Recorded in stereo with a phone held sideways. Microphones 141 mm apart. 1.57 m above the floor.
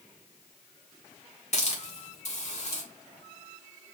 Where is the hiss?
55° left (ahead or behind), 1.2 m.